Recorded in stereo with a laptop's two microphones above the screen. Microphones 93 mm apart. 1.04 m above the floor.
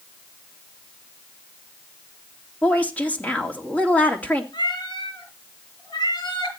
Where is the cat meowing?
55° left (ahead or behind), 5 m.